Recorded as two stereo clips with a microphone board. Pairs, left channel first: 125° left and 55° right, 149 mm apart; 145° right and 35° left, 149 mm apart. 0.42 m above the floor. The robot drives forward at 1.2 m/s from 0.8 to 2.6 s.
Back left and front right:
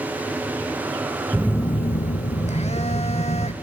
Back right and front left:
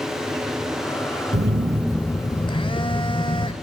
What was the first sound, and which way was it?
A phone buzzing, 35° left.